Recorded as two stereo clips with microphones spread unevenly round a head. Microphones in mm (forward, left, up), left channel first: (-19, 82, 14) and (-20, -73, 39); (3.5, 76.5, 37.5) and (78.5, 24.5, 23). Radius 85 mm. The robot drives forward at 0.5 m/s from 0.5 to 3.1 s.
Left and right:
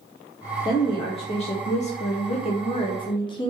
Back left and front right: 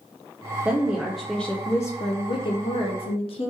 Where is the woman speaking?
35° left, 0.9 m; by 3.5 s 140° left, 0.8 m.